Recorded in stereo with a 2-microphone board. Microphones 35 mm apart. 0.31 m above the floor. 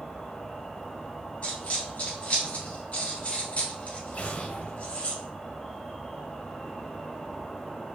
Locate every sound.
0.0 s an insect: 10° left (ahead or behind), 0.8 m
1.4 s a dropped coin: 45° left (ahead or behind), 1.9 m
4.1 s an explosion: 50° left (ahead or behind), 0.7 m